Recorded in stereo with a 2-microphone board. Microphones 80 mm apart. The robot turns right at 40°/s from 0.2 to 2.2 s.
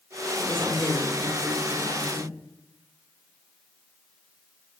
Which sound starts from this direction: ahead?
A woman speaking, at 0.4 s.